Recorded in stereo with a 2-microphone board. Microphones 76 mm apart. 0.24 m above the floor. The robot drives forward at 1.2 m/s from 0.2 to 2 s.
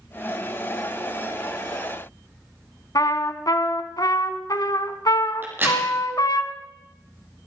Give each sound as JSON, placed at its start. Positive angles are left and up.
{"t": 3.0, "sound": "a trumpet", "side_deg": 60, "distance_m": 1.1}
{"t": 5.4, "sound": "a crack", "side_deg": -30, "distance_m": 6.5}